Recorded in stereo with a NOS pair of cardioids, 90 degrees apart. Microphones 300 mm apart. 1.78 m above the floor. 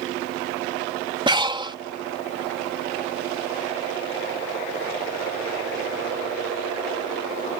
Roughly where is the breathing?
Ahead.